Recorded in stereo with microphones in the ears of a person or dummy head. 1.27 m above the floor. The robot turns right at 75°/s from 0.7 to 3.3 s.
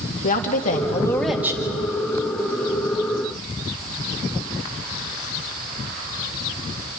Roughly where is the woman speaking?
Behind left.